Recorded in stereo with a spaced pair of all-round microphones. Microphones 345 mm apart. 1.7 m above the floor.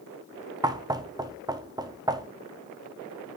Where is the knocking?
10° right (ahead or behind), 0.6 m.